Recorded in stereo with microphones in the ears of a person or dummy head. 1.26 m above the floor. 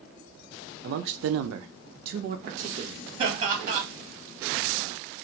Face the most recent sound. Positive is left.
turn(degrees=-25)  # may be behind; listen again after turning